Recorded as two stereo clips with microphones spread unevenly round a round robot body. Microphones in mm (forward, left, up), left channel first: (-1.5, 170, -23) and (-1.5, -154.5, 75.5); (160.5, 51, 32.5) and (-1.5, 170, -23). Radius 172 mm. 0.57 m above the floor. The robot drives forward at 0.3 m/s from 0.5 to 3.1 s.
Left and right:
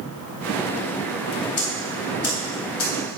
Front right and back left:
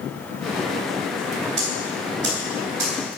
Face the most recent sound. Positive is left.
turn(degrees=130)